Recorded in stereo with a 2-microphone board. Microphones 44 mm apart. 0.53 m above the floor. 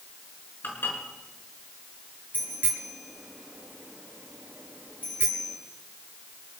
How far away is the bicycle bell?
About 6.5 m.